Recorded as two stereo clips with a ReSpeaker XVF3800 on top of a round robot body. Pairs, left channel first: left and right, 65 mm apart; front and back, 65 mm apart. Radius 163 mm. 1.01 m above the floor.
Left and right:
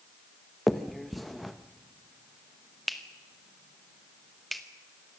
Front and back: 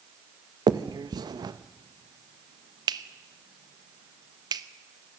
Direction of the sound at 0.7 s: Straight behind.